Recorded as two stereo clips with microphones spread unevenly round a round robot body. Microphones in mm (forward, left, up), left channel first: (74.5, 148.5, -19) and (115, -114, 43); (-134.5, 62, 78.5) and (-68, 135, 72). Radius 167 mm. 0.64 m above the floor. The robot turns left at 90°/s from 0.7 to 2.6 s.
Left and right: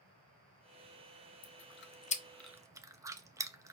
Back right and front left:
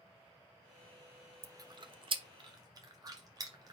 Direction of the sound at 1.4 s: 110° left.